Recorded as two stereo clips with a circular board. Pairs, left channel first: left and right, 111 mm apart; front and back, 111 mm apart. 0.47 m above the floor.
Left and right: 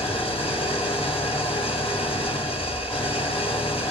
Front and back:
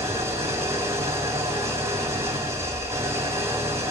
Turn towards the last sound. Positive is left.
turn(degrees=115)